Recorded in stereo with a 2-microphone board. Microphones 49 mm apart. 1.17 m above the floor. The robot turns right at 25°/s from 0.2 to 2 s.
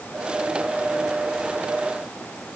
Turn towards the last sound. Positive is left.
No sound to turn to.